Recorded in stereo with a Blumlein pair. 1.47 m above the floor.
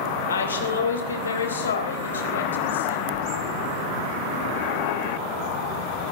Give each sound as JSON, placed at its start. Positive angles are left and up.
{"t": 0.3, "sound": "a woman speaking", "azimuth_deg": 70, "distance_m": 3.0}
{"t": 3.1, "sound": "a splash", "azimuth_deg": 40, "distance_m": 3.0}